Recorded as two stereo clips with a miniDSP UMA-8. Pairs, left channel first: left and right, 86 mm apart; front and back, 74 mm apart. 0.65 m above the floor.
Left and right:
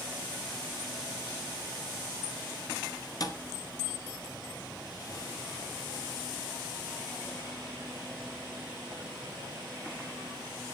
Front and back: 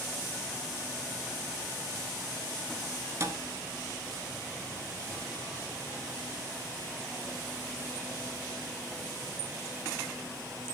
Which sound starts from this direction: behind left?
A thud, at 3.2 s.